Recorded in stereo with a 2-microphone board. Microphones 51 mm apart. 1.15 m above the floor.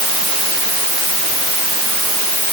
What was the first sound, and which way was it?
Only background noise.